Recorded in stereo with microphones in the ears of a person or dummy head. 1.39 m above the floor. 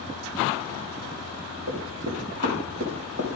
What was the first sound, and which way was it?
Running footsteps, 75° right (ahead or behind).